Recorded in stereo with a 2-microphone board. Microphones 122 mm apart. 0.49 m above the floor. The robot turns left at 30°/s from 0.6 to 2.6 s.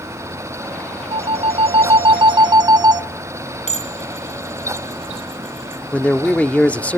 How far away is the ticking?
I don't hear ticking.